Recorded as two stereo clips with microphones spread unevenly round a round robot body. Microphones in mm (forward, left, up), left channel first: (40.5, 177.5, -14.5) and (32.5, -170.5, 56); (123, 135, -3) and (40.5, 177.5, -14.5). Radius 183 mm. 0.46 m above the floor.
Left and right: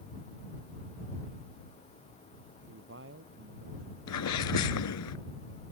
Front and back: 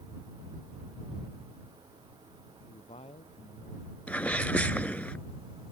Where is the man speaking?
35° right.